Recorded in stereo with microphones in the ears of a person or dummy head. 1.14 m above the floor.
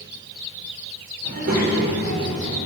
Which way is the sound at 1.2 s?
50° right (ahead or behind).